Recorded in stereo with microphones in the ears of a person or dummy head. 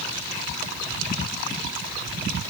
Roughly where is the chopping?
I don't hear chopping.